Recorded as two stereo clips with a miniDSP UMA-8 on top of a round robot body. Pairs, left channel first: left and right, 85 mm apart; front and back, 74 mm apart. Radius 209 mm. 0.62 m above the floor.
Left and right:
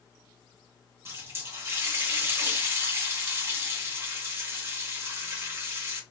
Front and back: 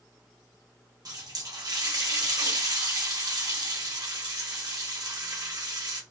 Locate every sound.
1.1 s a running tap: 150° right, 1.1 m